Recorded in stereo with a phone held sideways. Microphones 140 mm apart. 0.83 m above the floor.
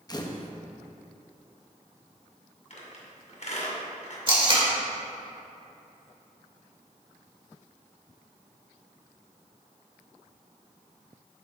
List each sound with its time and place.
0.1 s a camera shutter: 30° left (ahead or behind), 0.6 m
2.7 s a squeak: 60° left (ahead or behind), 1.9 m
4.3 s tape being pulled: 40° right (ahead or behind), 1.9 m